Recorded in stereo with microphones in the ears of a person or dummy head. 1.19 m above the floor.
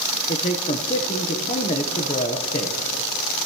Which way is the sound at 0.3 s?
25° left (ahead or behind).